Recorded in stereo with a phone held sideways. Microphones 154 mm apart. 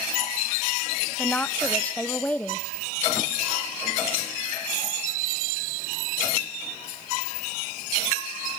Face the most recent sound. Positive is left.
turn(degrees=10)  # may be behind; listen again after turning